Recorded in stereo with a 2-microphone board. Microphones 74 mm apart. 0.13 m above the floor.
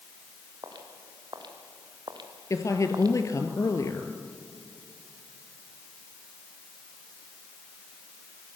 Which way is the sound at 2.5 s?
45° left (ahead or behind).